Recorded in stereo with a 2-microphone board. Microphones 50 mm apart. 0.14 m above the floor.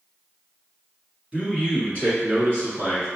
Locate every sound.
1.3 s a man speaking: 25° right (ahead or behind), 1.3 m; by 3.1 s 50° right (ahead or behind), 1.9 m